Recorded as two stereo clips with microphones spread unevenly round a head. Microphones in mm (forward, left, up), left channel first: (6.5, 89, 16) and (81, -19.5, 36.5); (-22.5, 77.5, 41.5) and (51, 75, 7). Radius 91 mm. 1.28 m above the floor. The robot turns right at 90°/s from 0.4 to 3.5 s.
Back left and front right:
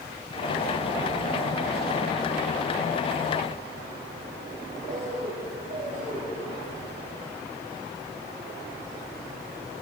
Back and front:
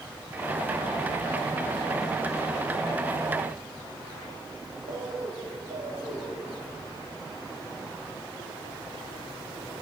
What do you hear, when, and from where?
4.9 s a bird: 30° right, 3 m